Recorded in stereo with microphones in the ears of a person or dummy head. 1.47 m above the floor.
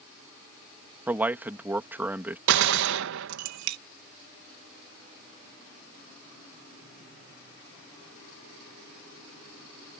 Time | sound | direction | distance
1.1 | a man speaking | 10° right (ahead or behind) | ?
2.5 | a gunshot | 75° right (ahead or behind) | ?